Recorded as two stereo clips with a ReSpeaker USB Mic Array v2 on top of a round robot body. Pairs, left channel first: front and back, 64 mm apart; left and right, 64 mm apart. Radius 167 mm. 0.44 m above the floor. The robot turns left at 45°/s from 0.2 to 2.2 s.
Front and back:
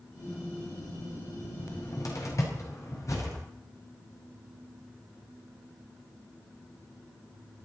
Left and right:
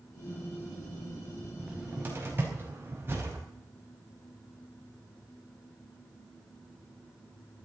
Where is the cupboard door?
10° right, 4.5 m; by 3.4 s 35° right, 4.5 m.